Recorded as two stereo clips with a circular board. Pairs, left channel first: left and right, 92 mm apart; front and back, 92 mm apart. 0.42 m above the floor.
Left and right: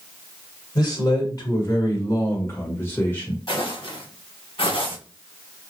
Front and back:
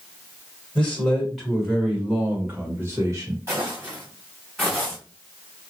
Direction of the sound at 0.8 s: 75° left.